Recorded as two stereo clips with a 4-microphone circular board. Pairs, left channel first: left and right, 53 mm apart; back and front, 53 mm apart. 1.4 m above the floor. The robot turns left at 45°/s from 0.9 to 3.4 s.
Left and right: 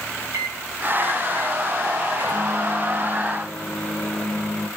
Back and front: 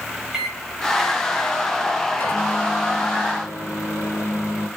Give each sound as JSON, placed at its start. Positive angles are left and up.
{"t": 0.3, "sound": "a microwave", "azimuth_deg": -85, "distance_m": 4.5}